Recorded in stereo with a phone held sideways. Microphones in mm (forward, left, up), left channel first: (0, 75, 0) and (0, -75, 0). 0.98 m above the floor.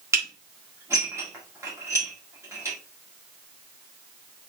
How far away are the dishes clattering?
About 1.6 m.